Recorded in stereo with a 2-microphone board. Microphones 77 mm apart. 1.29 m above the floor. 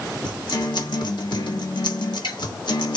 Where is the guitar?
70° left (ahead or behind), 1.6 m.